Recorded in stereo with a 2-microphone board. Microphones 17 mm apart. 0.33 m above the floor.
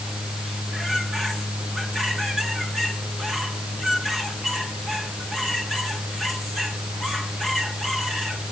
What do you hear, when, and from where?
Only background noise.